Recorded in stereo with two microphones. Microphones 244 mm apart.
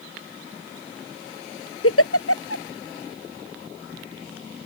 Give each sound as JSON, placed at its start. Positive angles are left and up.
{"t": 1.8, "sound": "a giggle", "side_deg": 65}